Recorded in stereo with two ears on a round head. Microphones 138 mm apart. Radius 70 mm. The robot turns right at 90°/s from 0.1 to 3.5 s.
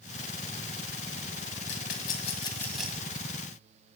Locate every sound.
1.7 s a rattle: 80° left, 1.9 m; by 3.1 s 25° right (ahead or behind), 1.9 m